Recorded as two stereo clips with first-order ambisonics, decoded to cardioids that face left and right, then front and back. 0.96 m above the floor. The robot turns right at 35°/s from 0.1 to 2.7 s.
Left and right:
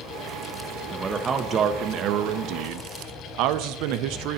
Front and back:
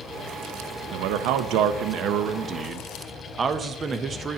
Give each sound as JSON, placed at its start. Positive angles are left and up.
{"t": 0.9, "sound": "a man speaking", "azimuth_deg": -170, "distance_m": 0.5}